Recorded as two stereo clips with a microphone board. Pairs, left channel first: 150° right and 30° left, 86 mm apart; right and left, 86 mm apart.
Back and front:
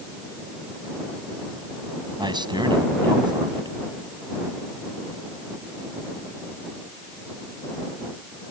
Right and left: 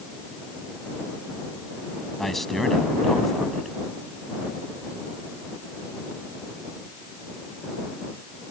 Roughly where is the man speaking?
Ahead.